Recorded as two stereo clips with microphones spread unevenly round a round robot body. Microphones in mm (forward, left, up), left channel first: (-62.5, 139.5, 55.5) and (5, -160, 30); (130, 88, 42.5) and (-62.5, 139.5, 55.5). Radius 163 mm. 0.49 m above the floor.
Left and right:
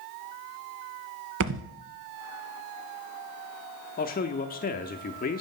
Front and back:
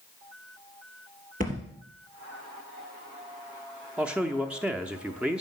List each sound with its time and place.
1.4 s a thud: 130° right, 0.9 m
4.0 s a man speaking: 75° left, 0.7 m